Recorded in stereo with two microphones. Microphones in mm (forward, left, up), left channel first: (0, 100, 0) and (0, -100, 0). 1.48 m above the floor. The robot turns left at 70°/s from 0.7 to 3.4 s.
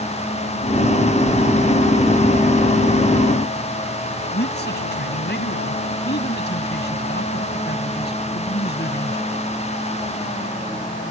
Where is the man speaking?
60° left (ahead or behind).